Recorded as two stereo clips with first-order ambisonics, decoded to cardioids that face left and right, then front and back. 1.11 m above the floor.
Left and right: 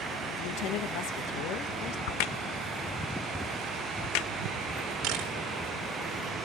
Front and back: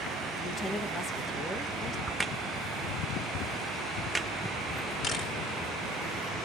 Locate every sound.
0.4 s a woman speaking: 75° left, 1.6 m
2.1 s a crack: 95° left, 0.8 m
5.0 s a camera shutter: 65° right, 4 m